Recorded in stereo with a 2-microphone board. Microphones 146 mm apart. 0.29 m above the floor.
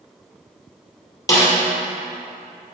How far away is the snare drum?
About 2 m.